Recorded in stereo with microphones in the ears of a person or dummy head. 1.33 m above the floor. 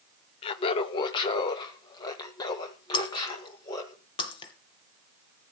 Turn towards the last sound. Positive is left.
turn(degrees=30)  # may be behind; listen again after turning